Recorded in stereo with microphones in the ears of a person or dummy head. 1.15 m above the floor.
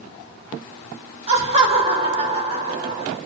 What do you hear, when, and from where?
1.3 s laughter: 35° right (ahead or behind), 2.5 m